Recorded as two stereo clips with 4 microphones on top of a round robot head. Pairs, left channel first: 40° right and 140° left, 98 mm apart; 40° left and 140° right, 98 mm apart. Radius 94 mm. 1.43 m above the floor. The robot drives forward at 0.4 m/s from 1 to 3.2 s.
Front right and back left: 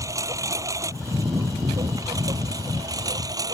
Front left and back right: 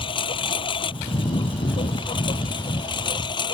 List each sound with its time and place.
0.0 s a lawn mower: 80° left; by 3.5 s 85° left